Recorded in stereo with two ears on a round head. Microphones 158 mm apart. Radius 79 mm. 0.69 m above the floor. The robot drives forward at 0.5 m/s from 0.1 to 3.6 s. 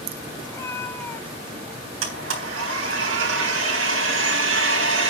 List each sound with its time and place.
0.5 s a cat meowing: 15° left (ahead or behind), 0.6 m; by 1.9 s 10° left (ahead or behind), 1.2 m
2.0 s a blender: 85° right, 3.5 m; by 5.1 s 80° right, 3.5 m